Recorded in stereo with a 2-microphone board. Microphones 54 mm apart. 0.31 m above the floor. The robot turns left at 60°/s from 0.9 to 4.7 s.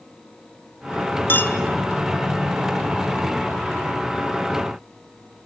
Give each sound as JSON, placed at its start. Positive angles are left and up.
{"t": 1.3, "sound": "a clink", "side_deg": 40, "distance_m": 1.0}